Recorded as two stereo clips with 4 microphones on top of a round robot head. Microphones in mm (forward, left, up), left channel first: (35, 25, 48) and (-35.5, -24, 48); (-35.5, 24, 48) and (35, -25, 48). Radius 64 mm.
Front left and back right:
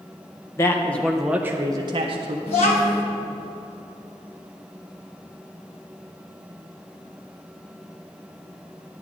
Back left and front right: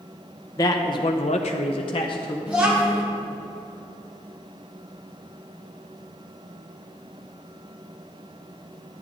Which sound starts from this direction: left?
A man speaking, at 0.6 s.